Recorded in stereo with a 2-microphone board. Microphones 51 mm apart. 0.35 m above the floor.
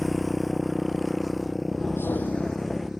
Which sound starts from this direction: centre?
A motorcycle, at 0.0 s.